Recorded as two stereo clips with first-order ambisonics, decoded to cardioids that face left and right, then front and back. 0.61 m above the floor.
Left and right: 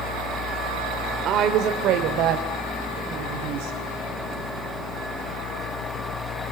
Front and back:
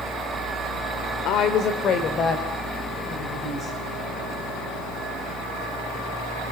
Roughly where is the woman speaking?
Ahead right.